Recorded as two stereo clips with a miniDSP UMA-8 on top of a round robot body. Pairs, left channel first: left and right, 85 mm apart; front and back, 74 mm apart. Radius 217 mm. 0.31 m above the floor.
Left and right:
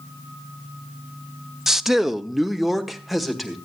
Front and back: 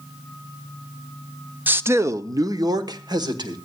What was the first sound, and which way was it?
A man speaking, 165° right.